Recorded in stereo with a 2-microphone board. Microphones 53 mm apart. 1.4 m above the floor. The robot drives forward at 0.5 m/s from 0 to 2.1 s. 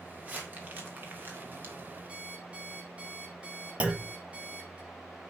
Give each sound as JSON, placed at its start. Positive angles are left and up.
{"t": 0.2, "sound": "crumpling", "side_deg": -30, "distance_m": 2.0}
{"t": 2.1, "sound": "an alarm clock", "side_deg": -25, "distance_m": 5.0}
{"t": 3.8, "sound": "a clunk", "side_deg": -25, "distance_m": 1.1}